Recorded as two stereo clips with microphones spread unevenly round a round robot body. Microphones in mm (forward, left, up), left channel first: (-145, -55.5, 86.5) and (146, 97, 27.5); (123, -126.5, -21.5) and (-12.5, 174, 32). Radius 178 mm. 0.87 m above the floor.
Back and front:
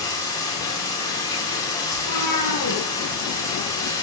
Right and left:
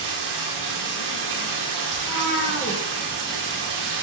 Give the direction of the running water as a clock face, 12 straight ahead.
8 o'clock.